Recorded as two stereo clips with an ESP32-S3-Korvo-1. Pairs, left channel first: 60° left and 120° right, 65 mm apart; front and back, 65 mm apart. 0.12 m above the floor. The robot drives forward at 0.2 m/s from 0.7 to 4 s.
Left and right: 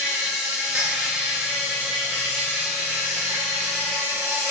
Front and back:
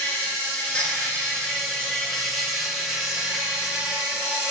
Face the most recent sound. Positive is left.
turn(degrees=-125)